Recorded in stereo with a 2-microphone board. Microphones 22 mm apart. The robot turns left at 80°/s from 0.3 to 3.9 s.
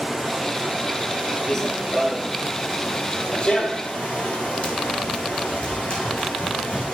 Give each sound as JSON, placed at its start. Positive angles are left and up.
{"t": 0.0, "sound": "running water", "azimuth_deg": 0, "distance_m": 8.0}
{"t": 1.5, "sound": "running footsteps", "side_deg": 20, "distance_m": 1.4}